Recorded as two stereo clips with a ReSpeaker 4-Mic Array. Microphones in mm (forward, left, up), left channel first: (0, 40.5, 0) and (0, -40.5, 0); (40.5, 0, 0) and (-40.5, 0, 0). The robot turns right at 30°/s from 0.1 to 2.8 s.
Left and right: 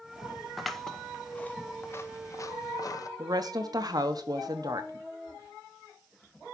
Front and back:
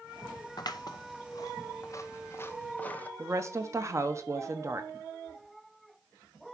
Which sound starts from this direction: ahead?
Scissors, at 0.6 s.